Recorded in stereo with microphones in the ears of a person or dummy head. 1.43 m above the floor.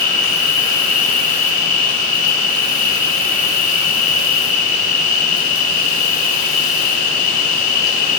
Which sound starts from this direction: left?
An insect, at 0.0 s.